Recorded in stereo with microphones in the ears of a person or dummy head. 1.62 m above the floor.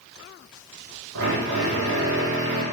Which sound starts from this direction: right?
A drill, at 1.1 s.